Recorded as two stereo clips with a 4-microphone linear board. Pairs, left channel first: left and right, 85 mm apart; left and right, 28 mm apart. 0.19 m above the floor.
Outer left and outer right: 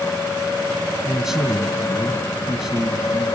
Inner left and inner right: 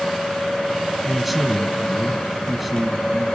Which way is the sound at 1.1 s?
5° right (ahead or behind).